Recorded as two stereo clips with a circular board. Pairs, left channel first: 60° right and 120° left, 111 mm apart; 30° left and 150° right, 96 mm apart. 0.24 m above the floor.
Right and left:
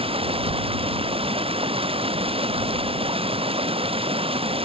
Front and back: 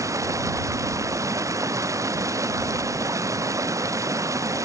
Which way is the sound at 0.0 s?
155° left.